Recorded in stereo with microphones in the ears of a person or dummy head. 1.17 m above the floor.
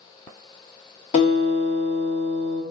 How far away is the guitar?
About 1.6 m.